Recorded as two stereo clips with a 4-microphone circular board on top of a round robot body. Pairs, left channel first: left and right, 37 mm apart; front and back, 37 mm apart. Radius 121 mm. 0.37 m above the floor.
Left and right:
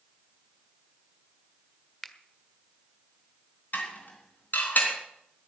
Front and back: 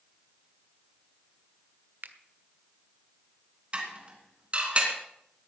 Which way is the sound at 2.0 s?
170° left.